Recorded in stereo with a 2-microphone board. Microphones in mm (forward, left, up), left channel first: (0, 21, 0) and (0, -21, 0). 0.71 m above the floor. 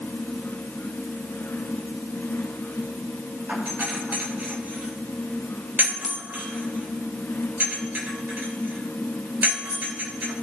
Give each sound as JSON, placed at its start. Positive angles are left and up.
{"t": 3.5, "sound": "a doorbell", "side_deg": -50, "distance_m": 3.5}